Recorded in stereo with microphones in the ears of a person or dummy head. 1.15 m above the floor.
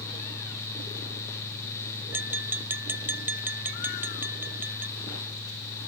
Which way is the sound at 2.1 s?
10° right (ahead or behind).